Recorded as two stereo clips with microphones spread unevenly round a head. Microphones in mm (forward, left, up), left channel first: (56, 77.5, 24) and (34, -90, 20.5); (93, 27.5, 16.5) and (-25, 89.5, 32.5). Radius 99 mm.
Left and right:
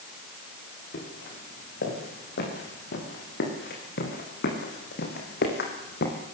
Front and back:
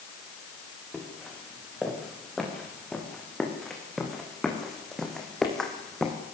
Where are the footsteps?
60° left, 9.5 m.